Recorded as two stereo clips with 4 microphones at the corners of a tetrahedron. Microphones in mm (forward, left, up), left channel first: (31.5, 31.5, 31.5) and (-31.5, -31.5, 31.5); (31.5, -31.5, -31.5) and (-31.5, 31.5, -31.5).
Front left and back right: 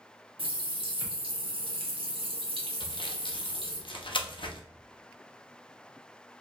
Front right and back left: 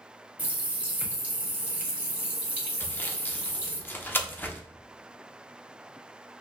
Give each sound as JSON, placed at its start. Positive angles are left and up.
{"t": 0.4, "sound": "a running tap", "azimuth_deg": -150, "distance_m": 1.0}
{"t": 2.8, "sound": "sawing", "azimuth_deg": 25, "distance_m": 0.6}